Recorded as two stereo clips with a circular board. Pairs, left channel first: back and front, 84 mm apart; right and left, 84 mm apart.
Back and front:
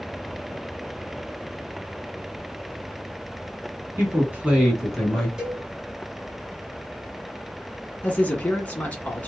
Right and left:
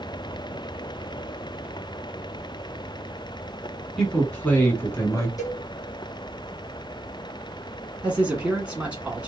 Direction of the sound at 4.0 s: 15° right.